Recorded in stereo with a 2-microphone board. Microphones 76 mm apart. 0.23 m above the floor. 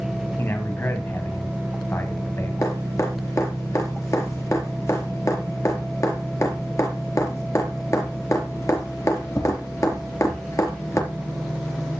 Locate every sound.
0.4 s a man speaking: 35° left (ahead or behind), 1.9 m
2.6 s dripping: 45° left (ahead or behind), 4.5 m